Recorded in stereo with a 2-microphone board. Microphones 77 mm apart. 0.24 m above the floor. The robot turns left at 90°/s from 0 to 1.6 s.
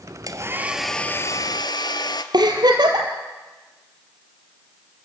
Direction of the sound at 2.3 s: 70° right (ahead or behind).